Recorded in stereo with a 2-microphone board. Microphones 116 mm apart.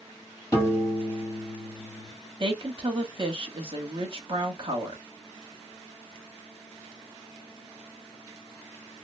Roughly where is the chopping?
No chopping in this recording.